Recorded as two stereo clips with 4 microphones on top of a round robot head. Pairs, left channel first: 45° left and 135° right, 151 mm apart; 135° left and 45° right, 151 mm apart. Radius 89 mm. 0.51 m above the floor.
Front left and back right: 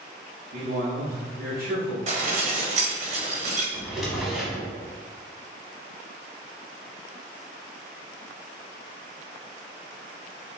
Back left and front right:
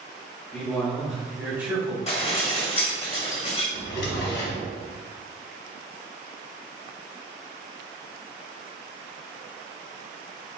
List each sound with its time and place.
0.5 s a man speaking: 145° right, 1.0 m; by 2.0 s 115° right, 1.5 m
2.1 s dishes clattering: 175° right, 1.6 m
3.7 s a drawer: 135° left, 1.0 m